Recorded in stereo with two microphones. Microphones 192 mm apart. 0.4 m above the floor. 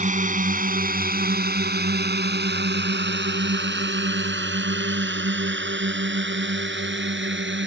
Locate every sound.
0.0 s a drone: 40° right (ahead or behind); by 7.7 s 75° right (ahead or behind)